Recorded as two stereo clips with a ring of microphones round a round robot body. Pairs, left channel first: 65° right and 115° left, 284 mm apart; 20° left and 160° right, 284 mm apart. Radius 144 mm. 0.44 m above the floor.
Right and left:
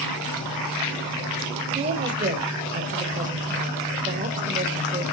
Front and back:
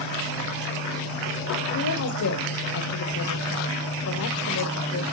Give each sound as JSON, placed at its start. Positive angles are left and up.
{"t": 1.7, "sound": "a woman speaking", "azimuth_deg": 50, "distance_m": 1.7}